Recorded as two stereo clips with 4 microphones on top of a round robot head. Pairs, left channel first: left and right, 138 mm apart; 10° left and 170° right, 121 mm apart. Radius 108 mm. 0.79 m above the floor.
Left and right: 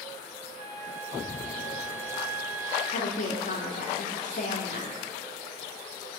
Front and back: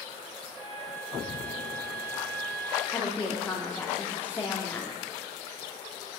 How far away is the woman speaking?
About 2 m.